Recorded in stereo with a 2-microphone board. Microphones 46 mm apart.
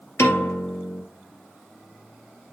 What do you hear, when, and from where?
0.2 s a piano: 90° left, 2.5 m